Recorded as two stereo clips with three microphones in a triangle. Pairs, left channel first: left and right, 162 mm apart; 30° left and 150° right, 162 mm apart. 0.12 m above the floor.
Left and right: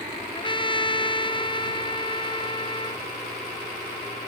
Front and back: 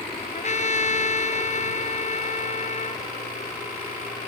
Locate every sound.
0.3 s a trumpet: 45° left